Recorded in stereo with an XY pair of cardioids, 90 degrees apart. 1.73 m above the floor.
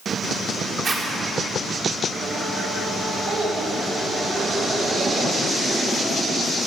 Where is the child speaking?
55° right, 5.5 m.